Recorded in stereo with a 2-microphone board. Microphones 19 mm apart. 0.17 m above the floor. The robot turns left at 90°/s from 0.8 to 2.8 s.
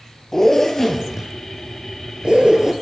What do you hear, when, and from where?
0.3 s a zipper: 25° left (ahead or behind), 0.6 m; by 2.7 s 30° right (ahead or behind), 0.6 m